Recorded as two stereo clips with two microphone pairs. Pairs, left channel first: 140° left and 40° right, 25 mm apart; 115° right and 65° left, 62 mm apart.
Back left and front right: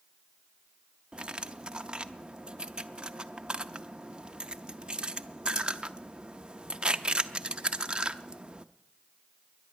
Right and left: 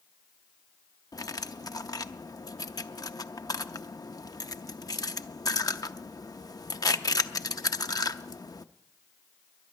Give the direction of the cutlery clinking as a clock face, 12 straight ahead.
3 o'clock.